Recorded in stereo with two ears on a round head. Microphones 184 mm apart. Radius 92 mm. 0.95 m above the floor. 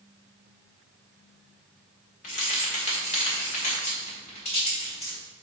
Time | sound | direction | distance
2.2 | keys jangling | 40° left (ahead or behind) | 1.4 m